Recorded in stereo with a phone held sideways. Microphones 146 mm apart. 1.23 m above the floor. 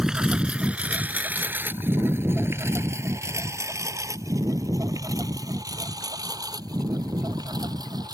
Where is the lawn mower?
5° right (ahead or behind); by 8.1 s 30° right (ahead or behind).